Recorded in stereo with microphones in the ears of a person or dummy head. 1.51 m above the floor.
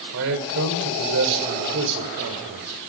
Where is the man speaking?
70° right (ahead or behind), 5 m.